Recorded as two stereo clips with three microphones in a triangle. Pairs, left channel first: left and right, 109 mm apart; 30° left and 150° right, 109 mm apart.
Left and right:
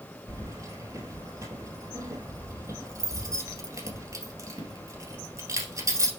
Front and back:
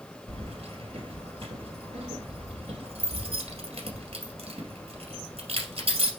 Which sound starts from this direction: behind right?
Keys jangling, at 0.3 s.